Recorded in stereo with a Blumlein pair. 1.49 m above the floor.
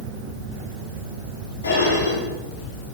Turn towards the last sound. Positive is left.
turn(degrees=65)